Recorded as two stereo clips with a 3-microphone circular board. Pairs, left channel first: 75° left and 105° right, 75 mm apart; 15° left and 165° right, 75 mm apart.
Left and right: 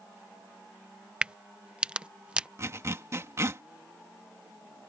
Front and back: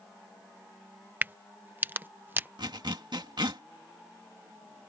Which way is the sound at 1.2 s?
160° right.